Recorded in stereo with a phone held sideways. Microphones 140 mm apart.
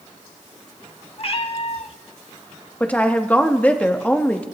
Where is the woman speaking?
10° left (ahead or behind), 1.3 m.